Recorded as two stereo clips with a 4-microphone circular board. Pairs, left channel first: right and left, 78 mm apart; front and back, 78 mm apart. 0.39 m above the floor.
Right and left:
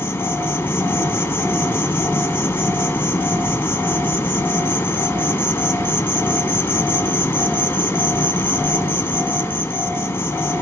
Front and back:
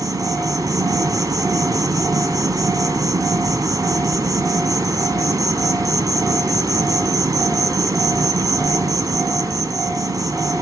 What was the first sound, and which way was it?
An insect, 150° right.